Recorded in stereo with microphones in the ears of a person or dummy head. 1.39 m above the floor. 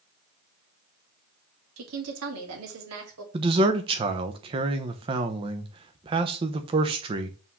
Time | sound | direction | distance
1.8 | a woman speaking | 75° right (ahead or behind) | 2 m
3.3 | a man speaking | 25° right (ahead or behind) | 0.9 m